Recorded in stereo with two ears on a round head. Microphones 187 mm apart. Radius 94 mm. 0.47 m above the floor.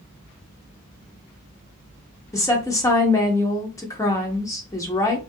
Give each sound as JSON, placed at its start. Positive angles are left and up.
{"t": 2.3, "sound": "a woman speaking", "side_deg": 15, "distance_m": 0.7}